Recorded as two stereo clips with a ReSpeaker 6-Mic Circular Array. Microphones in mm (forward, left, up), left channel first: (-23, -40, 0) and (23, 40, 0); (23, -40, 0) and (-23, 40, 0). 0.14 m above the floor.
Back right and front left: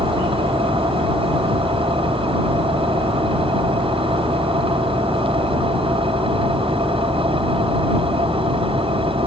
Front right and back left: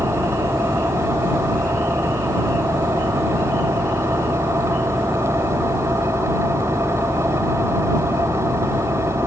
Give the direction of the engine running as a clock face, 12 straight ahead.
10 o'clock.